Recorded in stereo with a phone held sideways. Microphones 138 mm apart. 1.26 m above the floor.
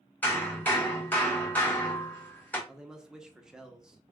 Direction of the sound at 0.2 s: 10° left (ahead or behind).